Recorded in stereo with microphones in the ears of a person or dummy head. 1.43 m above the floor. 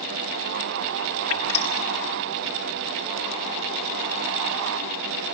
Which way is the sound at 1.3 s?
35° left (ahead or behind).